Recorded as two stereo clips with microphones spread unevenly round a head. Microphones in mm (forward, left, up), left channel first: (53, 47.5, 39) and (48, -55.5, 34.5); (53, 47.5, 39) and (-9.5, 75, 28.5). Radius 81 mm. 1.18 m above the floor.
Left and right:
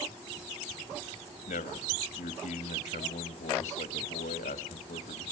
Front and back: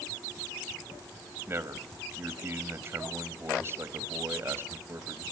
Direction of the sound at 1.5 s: 100° left.